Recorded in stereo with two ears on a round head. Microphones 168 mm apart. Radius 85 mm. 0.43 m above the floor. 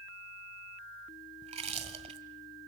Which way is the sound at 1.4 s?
35° right (ahead or behind).